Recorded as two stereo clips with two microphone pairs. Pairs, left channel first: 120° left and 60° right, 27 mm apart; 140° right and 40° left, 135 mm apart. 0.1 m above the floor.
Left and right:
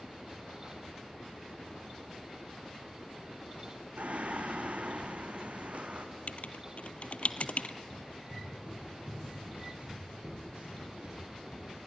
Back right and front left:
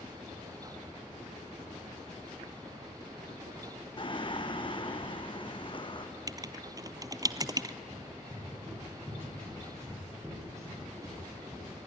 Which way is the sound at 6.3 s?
100° left.